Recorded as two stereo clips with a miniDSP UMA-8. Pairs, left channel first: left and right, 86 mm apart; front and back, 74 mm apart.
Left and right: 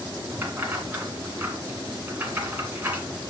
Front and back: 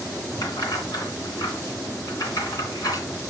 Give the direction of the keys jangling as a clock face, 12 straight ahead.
1 o'clock.